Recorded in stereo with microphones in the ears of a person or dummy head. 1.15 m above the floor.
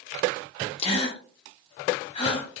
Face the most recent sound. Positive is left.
turn(degrees=40)  # may be behind; listen again after turning